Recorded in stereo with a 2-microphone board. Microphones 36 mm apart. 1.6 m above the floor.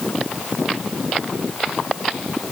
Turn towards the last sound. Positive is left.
No sound to turn to.